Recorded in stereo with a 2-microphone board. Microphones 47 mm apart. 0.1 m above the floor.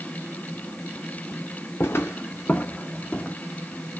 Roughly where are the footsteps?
Left.